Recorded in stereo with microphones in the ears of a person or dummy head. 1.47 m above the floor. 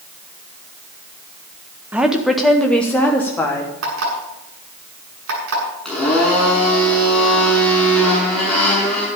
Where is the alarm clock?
85° right, 7.5 m.